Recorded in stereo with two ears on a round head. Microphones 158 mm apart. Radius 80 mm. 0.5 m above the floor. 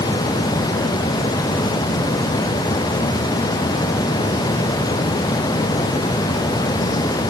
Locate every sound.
Only background noise.